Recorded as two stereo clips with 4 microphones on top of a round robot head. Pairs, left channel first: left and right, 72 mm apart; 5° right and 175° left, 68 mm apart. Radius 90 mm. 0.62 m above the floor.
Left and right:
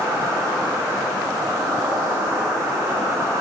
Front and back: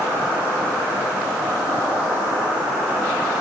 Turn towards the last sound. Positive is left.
turn(degrees=-125)